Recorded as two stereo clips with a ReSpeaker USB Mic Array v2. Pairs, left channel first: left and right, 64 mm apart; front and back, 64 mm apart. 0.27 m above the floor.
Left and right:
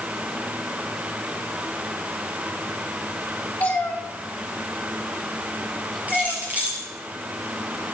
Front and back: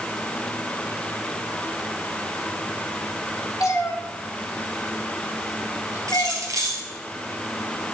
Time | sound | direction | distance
3.6 | a cat meowing | 25° left | 2.5 m
6.1 | keys jangling | 155° right | 4 m